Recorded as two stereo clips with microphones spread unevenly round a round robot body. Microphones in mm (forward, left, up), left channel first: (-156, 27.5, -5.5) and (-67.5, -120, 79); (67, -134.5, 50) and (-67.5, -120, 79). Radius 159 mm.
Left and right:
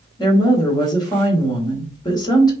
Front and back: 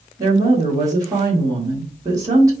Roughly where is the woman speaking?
Left.